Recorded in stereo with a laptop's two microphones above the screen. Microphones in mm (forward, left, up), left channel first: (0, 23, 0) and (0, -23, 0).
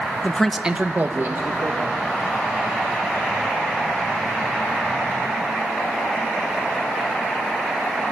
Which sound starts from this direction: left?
A man speaking, at 0.2 s.